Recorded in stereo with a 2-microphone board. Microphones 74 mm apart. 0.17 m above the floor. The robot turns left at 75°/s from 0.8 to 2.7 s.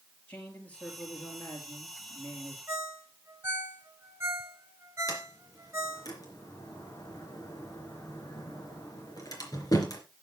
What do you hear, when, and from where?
0.3 s a man speaking: 160° left, 4.5 m; by 2.6 s 25° left, 4.5 m
2.7 s a ringtone: 35° right (ahead or behind), 1.4 m
5.1 s a sliding door: 55° left (ahead or behind), 3.5 m